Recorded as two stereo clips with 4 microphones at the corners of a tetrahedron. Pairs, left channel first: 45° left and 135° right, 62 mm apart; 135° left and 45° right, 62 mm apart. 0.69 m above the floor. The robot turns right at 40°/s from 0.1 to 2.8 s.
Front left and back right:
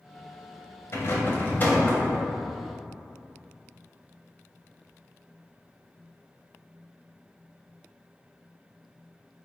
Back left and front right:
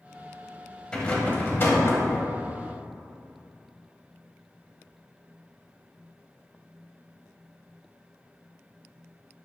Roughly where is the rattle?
Ahead left.